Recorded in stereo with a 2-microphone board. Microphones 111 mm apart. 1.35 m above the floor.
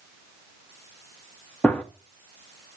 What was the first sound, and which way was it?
A gunshot, 10° left (ahead or behind).